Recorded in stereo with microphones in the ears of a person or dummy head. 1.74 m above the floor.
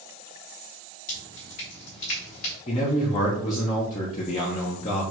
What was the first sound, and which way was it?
Dripping, 45° left (ahead or behind).